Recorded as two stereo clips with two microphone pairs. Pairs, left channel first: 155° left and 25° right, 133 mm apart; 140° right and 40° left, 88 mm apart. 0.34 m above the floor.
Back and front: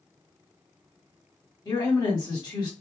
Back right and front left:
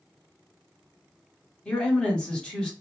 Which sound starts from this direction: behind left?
A woman speaking, at 1.6 s.